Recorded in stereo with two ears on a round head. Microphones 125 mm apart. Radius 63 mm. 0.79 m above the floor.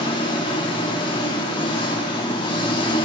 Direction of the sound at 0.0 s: 35° left (ahead or behind).